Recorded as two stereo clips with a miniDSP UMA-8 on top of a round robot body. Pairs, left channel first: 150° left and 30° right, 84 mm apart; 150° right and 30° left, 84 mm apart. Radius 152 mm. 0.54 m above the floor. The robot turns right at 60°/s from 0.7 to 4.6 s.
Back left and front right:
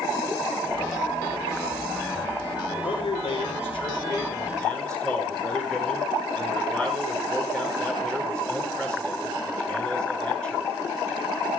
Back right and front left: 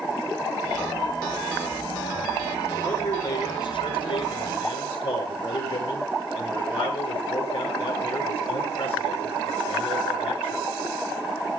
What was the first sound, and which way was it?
A man speaking, 125° left.